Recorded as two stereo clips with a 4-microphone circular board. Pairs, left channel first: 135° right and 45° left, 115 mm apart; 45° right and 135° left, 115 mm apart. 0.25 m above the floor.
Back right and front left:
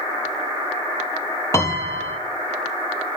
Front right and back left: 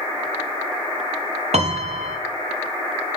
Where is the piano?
160° left, 1.7 m.